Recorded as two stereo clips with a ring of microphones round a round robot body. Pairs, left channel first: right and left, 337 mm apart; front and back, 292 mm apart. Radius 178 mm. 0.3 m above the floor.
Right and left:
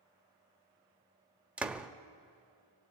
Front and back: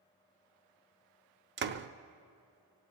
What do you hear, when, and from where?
1.6 s a door slam: 175° left, 0.6 m